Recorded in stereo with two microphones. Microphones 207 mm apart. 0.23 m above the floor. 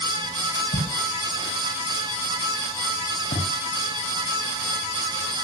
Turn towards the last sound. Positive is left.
turn(degrees=60)  # may be behind; listen again after turning